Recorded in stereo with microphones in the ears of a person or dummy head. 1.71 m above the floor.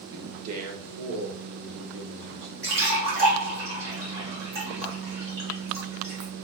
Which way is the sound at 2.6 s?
30° right (ahead or behind).